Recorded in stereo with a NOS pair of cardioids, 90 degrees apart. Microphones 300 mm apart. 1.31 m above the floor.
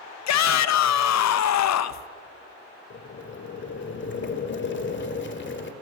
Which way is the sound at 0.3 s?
60° left.